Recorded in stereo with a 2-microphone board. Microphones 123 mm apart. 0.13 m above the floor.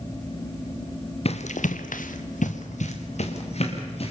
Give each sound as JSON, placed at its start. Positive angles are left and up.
{"t": 1.2, "sound": "running footsteps", "side_deg": 50, "distance_m": 1.5}